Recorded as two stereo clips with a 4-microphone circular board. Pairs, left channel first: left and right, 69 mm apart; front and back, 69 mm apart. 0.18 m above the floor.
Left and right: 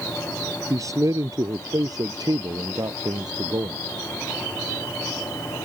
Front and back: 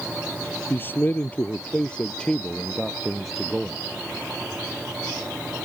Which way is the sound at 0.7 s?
55° right.